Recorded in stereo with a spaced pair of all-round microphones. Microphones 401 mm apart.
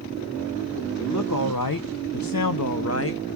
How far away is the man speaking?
About 1.2 m.